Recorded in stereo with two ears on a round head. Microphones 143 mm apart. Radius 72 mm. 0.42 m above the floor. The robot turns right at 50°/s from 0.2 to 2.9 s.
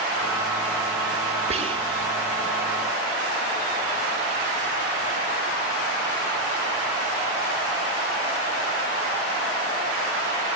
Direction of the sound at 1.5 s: 40° right (ahead or behind).